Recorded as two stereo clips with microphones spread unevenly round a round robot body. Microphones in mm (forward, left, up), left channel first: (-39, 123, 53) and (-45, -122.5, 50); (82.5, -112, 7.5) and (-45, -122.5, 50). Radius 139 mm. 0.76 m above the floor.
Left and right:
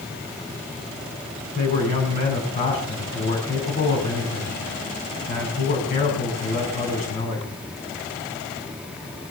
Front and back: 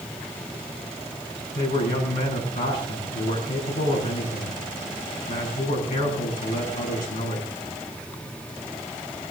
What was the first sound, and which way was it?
A man speaking, 25° left.